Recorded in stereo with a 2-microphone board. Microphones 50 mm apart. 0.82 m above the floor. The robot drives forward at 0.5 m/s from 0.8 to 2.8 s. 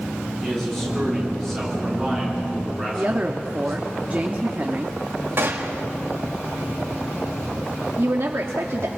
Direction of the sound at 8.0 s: 55° right (ahead or behind).